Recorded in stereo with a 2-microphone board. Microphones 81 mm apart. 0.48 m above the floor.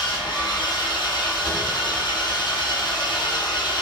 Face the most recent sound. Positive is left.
turn(degrees=80)